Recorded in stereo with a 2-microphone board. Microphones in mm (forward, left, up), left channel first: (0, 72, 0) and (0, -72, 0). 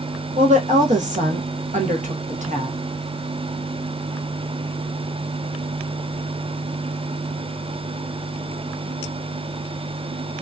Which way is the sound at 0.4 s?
60° right (ahead or behind).